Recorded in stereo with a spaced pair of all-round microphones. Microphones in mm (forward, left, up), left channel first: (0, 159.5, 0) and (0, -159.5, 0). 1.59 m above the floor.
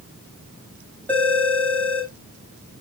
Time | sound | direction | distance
1.1 | a phone ringing | 5° left (ahead or behind) | 7 m